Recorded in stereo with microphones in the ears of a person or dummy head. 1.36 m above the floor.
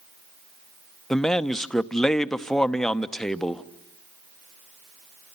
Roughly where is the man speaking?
Centre.